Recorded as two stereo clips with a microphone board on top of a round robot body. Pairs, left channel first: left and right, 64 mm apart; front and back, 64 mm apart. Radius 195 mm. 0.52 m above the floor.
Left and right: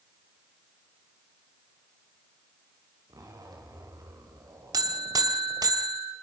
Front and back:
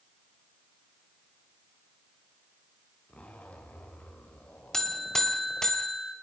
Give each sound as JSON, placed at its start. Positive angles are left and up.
{"t": 3.1, "sound": "a zipper", "azimuth_deg": -70, "distance_m": 3.5}
{"t": 4.7, "sound": "a buzzer", "azimuth_deg": -85, "distance_m": 2.0}